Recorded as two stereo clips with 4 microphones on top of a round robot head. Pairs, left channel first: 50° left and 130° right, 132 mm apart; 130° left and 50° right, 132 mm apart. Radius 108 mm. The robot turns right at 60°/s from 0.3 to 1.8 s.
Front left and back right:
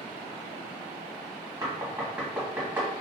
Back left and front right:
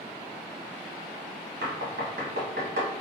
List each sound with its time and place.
1.6 s knocking: 60° right, 1.0 m; by 2.9 s 50° right, 1.0 m